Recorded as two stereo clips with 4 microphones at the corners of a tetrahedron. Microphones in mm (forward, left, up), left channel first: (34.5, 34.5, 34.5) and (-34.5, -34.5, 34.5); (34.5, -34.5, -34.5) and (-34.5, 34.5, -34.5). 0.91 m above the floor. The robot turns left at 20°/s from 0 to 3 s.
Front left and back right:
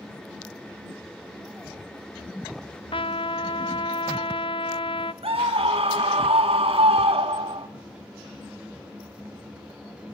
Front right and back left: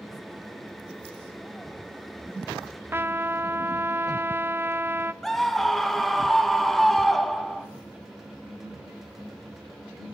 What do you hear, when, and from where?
2.9 s a trumpet: 70° left, 0.7 m; by 5.1 s 65° left, 0.7 m
5.2 s a scream: 130° right, 1.9 m